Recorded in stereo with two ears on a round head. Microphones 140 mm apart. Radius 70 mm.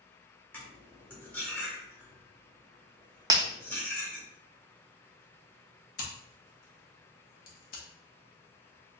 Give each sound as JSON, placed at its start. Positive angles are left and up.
{"t": 0.5, "sound": "cutlery clinking", "side_deg": 10, "distance_m": 1.2}
{"t": 3.3, "sound": "breaking glass", "side_deg": -20, "distance_m": 0.5}
{"t": 6.0, "sound": "scissors", "side_deg": 60, "distance_m": 1.1}